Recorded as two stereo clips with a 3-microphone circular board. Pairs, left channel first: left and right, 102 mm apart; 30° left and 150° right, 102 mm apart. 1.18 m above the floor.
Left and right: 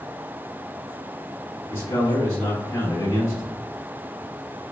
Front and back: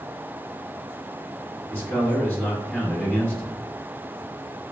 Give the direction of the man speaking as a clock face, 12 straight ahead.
9 o'clock.